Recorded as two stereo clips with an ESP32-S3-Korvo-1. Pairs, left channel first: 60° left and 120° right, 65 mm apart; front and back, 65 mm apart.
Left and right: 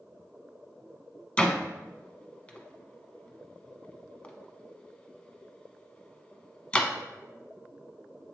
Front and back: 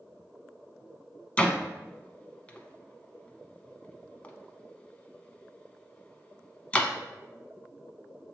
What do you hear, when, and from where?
1.4 s a door slam: 25° left, 0.7 m